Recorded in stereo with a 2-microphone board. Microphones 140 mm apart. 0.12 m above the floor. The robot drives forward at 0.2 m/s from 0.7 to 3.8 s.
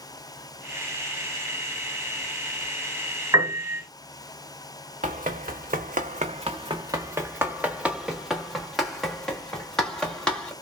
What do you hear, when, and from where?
3.3 s a piano: 25° right (ahead or behind), 1.7 m
5.0 s running footsteps: 70° right (ahead or behind), 0.7 m; by 10.5 s 5° left (ahead or behind), 2.5 m